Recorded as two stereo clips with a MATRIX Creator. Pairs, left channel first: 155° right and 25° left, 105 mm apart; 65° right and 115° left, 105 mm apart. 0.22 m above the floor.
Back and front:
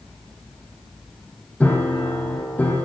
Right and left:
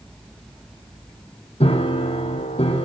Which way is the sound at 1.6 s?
80° right.